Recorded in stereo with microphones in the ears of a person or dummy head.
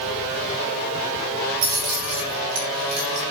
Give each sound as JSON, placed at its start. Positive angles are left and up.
{"t": 1.6, "sound": "keys jangling", "side_deg": -80, "distance_m": 4.5}